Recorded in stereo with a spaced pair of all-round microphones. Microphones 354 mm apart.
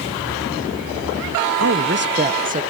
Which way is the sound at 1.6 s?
45° right (ahead or behind).